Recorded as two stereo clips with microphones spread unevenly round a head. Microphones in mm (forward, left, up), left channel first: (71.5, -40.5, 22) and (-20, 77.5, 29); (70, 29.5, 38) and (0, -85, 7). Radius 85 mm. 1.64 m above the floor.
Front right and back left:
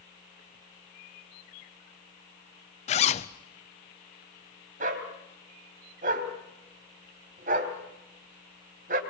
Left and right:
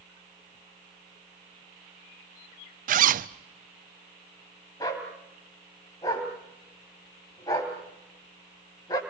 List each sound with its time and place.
2.9 s a zipper: 105° right, 0.7 m
4.8 s a dog barking: 110° left, 2.5 m